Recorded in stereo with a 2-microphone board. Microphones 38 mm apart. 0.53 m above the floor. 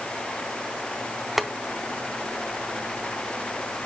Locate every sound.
1.4 s boiling: 5° right (ahead or behind), 0.6 m